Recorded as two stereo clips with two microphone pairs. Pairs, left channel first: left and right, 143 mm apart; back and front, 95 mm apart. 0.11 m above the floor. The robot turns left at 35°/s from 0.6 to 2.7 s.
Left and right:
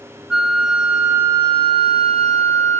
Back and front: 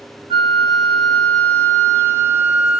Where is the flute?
10° right, 0.5 m; by 2.8 s 80° right, 0.5 m.